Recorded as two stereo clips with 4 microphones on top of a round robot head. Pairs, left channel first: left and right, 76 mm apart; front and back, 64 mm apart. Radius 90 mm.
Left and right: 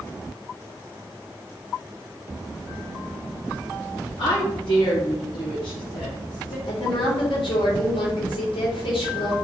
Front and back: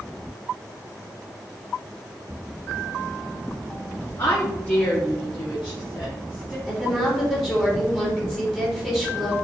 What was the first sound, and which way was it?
A woman speaking, 65° left.